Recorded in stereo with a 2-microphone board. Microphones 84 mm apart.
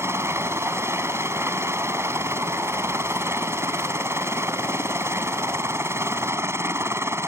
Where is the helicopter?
30° right (ahead or behind).